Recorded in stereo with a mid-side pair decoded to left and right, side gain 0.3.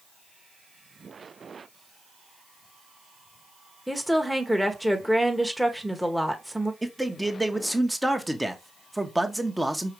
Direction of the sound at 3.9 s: Straight ahead.